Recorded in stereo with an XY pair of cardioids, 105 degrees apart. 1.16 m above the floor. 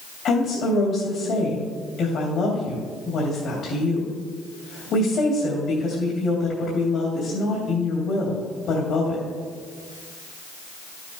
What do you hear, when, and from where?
0.2 s a woman speaking: 65° left, 3 m